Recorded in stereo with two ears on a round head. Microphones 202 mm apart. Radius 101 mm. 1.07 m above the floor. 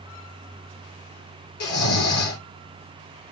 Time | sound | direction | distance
1.6 | snoring | 70° left (ahead or behind) | 3.5 m